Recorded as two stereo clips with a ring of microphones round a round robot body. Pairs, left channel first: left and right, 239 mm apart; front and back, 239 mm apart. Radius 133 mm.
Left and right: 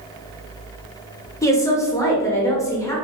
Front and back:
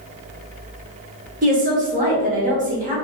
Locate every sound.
1.4 s a woman speaking: 160° left, 1.4 m